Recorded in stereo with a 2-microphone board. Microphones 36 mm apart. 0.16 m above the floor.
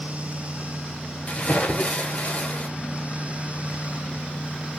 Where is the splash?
40° left (ahead or behind), 1.3 m.